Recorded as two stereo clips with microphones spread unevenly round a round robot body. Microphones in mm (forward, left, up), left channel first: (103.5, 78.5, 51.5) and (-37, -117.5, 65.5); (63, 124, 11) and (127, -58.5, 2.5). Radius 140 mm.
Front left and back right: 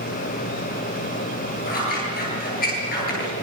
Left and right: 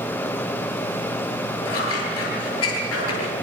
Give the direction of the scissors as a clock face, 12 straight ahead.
8 o'clock.